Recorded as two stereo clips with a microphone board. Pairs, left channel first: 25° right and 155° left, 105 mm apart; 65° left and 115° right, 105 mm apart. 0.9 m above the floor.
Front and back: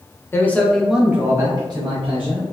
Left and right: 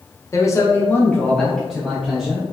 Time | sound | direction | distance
0.3 | a man speaking | 30° left | 0.6 m